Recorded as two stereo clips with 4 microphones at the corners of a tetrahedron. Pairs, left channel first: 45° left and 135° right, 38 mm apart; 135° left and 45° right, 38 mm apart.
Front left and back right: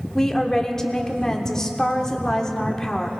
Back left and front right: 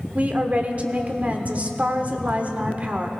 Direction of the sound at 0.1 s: 25° right.